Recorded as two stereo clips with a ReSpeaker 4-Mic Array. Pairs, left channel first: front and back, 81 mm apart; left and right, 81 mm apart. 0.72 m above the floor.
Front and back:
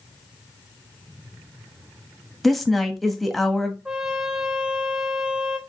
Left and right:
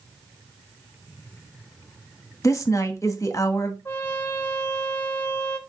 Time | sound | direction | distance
2.4 | a woman speaking | 90° left | 0.9 m
3.9 | a trumpet | 120° left | 1.0 m